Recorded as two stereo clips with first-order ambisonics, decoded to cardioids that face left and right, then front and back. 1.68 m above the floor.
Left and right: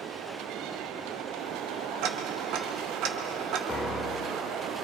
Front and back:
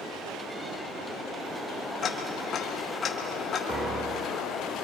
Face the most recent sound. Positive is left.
turn(degrees=130)